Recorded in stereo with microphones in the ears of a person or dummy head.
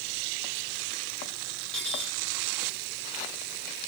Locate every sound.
1.7 s cutlery clinking: 5° left (ahead or behind), 4 m